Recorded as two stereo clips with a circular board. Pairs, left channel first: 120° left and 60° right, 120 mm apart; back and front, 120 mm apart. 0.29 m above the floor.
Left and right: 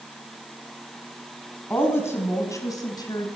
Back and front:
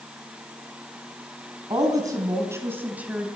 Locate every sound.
1.7 s a woman speaking: 50° left, 3 m; by 3.3 s 80° left, 2.5 m